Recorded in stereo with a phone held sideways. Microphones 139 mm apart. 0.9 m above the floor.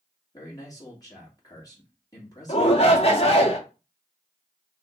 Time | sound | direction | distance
0.3 | a man speaking | 25° left (ahead or behind) | 2 m
2.5 | a shout | 45° left (ahead or behind) | 1.3 m